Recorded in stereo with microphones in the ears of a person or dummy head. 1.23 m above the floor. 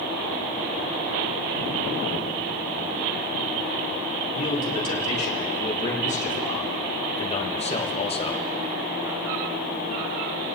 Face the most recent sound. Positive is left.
turn(degrees=20)  # may be behind; listen again after turning